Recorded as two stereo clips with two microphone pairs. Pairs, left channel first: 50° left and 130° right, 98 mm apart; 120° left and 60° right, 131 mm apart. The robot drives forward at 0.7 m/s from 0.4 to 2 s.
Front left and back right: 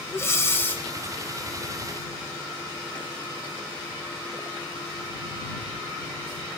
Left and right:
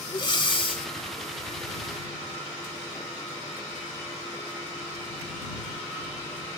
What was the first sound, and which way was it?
Breathing, 95° left.